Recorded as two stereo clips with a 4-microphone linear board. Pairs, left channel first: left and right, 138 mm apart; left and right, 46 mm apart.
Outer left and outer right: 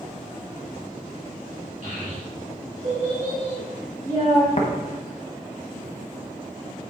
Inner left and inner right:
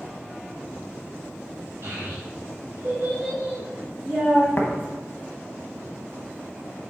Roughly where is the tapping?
Left.